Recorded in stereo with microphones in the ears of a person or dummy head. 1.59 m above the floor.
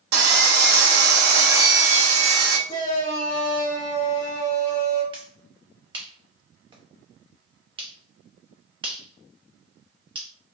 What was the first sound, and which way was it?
Sawing, 60° right (ahead or behind).